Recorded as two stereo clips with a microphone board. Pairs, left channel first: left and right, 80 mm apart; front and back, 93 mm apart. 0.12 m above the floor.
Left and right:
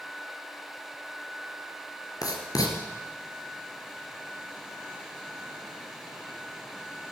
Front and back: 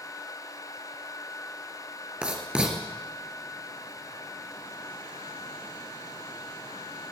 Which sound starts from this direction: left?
Writing, at 2.2 s.